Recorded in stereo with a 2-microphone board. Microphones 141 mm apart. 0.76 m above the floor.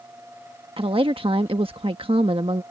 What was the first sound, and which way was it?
A woman speaking, 40° right (ahead or behind).